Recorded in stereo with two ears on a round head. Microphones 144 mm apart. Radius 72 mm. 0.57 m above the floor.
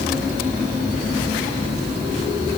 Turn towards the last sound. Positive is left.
No sound to turn to.